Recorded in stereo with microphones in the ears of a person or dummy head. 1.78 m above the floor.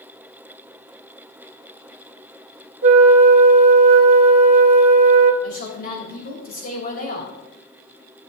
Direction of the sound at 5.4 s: 55° left (ahead or behind).